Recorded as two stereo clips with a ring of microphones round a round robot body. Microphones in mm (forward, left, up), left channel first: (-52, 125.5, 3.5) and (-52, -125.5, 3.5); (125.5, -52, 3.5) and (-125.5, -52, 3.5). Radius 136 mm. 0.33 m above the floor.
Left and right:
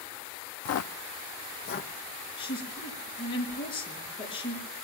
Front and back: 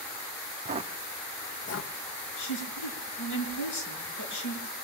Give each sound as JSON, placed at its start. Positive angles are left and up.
{"t": 0.7, "sound": "footsteps", "azimuth_deg": 120, "distance_m": 0.6}
{"t": 2.4, "sound": "a woman speaking", "azimuth_deg": 15, "distance_m": 4.5}